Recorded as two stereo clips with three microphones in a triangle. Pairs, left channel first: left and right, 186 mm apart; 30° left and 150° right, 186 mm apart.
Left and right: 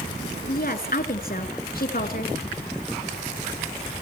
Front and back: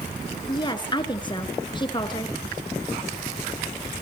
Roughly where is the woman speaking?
Left.